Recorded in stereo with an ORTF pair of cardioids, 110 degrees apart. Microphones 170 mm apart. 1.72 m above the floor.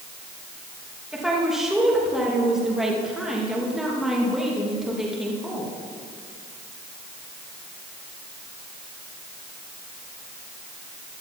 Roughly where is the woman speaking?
Ahead.